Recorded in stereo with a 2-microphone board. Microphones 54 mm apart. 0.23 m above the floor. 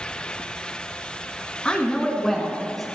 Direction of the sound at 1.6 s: 20° left (ahead or behind).